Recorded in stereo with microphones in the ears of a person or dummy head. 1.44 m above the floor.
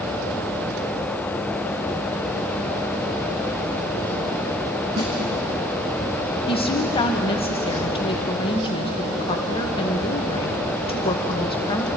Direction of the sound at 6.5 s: 30° left (ahead or behind).